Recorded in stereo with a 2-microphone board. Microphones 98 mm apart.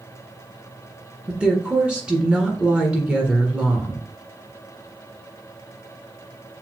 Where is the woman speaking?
10° right (ahead or behind), 1.4 m.